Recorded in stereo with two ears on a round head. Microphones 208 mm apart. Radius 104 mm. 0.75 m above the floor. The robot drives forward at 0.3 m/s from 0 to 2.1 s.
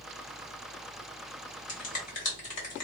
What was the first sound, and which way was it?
A finger snap, 35° left (ahead or behind).